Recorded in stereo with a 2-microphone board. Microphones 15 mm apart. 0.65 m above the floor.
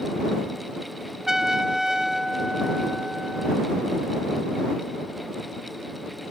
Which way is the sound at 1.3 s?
35° right (ahead or behind).